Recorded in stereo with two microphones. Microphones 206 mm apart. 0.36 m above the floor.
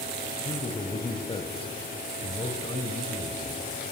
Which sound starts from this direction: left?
A man speaking, at 0.5 s.